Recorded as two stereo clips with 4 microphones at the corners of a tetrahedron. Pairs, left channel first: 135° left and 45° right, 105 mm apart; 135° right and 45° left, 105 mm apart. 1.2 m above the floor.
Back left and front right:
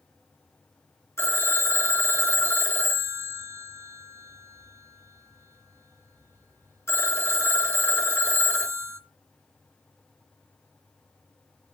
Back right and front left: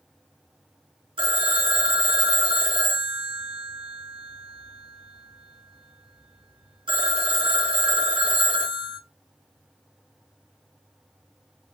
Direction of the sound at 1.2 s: 70° left.